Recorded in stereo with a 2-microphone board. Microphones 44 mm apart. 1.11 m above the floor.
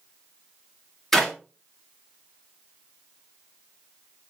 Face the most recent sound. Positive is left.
turn(degrees=5)  # may be behind; listen again after turning